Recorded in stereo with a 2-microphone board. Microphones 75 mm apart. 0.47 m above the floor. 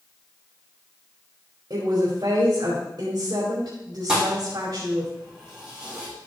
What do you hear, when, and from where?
1.7 s a woman speaking: 60° right (ahead or behind), 2.5 m
4.1 s a thud: 10° right (ahead or behind), 5 m